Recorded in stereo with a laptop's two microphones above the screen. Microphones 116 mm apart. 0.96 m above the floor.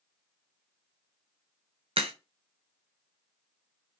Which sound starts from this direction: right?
A crack, at 2.0 s.